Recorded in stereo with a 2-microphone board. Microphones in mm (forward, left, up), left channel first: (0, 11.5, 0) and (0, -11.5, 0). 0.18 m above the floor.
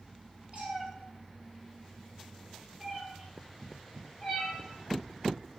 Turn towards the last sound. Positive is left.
turn(degrees=20)  # may be behind; listen again after turning